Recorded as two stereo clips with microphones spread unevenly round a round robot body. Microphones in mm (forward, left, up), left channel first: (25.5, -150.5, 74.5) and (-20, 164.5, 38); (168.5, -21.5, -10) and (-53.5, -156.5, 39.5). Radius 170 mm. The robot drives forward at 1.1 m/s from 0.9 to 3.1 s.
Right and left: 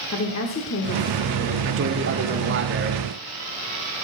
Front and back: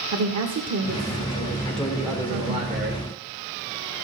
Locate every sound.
0.1 s a woman speaking: 125° right, 1.6 m; by 2.6 s 160° right, 3 m
1.6 s a man speaking: 100° left, 1.5 m; by 3.0 s 150° left, 2.5 m